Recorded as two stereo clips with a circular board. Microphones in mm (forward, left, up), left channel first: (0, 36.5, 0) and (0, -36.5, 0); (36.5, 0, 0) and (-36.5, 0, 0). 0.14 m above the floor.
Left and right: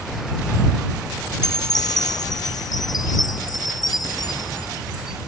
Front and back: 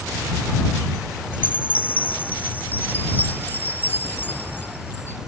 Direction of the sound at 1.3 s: 65° left.